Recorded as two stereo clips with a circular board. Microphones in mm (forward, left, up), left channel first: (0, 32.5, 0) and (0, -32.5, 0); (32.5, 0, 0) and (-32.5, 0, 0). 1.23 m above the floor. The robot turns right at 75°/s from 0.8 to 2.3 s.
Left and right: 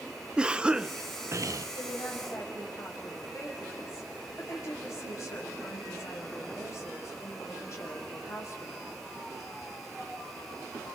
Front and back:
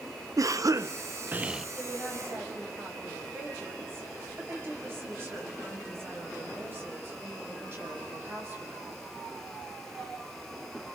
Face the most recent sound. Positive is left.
turn(degrees=130)